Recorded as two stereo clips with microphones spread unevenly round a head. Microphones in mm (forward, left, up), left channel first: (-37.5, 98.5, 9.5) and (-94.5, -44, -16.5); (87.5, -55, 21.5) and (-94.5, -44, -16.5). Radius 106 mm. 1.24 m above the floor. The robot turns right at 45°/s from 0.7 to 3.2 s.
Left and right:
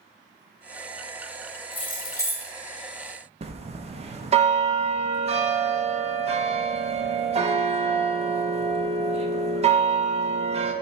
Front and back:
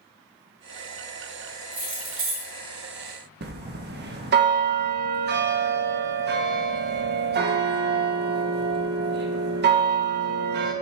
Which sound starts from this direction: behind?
A bell, at 3.4 s.